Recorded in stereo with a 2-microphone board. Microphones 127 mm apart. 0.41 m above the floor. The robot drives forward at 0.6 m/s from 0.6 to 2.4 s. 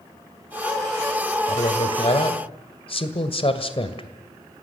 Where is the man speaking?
50° left (ahead or behind), 2.0 m; by 4.1 s 45° left (ahead or behind), 2 m.